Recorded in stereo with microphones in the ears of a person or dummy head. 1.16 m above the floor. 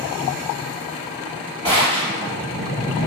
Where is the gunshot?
20° left (ahead or behind), 1.9 m.